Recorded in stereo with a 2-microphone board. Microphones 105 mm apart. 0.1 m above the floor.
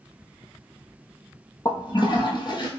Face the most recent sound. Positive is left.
turn(degrees=45)  # may be behind; listen again after turning